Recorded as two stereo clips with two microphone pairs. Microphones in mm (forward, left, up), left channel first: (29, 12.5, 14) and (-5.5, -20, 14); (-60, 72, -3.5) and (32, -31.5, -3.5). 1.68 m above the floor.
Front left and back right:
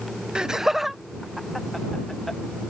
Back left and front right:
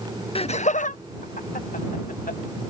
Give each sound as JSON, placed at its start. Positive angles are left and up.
{"t": 0.3, "sound": "laughter", "azimuth_deg": 155}